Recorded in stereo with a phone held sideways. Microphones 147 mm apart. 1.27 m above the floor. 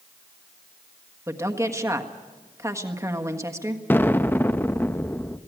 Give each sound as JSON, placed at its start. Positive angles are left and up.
{"t": 1.3, "sound": "a woman speaking", "side_deg": -20, "distance_m": 1.5}
{"t": 3.9, "sound": "an explosion", "side_deg": 15, "distance_m": 0.6}